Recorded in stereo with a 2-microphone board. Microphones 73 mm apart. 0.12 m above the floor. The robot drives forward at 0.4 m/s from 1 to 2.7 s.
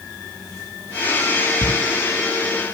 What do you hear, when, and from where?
1.6 s writing: 45° left (ahead or behind), 4 m; by 1.7 s 50° left (ahead or behind), 4 m